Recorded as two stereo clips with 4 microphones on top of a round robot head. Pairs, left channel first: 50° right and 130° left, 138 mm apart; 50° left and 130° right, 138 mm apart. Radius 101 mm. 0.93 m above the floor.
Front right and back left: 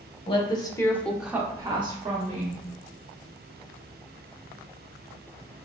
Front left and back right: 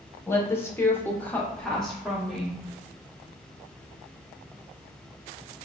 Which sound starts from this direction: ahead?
A woman speaking, at 0.3 s.